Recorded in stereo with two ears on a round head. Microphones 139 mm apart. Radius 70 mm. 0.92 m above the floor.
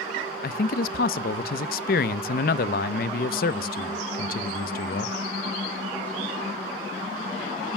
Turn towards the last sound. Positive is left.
turn(degrees=60)  # may be behind; listen again after turning